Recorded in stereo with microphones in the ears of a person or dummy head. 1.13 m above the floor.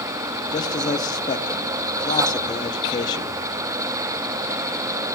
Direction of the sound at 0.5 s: 20° left (ahead or behind).